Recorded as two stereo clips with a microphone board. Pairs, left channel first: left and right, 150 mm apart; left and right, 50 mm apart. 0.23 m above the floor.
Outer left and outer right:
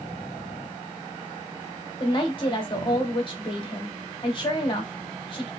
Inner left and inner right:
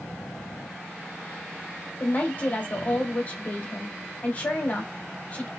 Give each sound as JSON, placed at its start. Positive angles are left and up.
{"t": 2.0, "sound": "a woman speaking", "side_deg": 35, "distance_m": 1.1}